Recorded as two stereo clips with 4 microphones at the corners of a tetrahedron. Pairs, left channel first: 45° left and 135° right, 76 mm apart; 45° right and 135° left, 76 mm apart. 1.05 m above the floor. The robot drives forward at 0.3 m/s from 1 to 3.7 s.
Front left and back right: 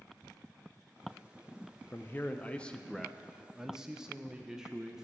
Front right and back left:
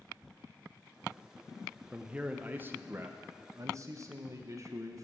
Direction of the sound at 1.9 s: 65° left.